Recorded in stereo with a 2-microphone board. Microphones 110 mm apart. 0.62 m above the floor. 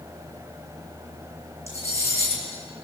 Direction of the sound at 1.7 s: 25° right (ahead or behind).